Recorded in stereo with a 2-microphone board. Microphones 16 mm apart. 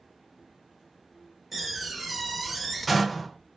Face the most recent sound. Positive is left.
turn(degrees=-10)  # may be behind; listen again after turning